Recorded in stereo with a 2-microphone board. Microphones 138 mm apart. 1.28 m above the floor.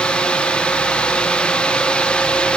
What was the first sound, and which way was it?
Only background noise.